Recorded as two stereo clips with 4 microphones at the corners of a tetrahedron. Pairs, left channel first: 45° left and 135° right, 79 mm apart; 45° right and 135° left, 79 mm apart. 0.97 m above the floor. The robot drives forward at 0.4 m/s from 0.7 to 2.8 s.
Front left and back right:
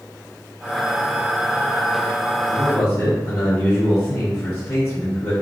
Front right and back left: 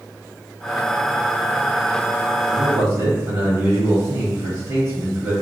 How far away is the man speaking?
About 1.3 m.